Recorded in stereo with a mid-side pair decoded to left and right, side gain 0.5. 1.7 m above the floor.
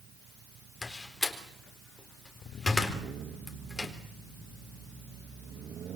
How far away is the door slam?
About 4 m.